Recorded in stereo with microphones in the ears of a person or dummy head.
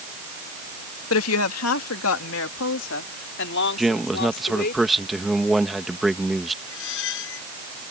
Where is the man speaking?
5° right (ahead or behind).